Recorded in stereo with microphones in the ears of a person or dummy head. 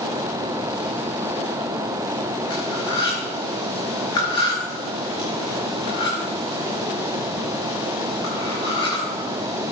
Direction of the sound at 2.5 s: 25° left (ahead or behind).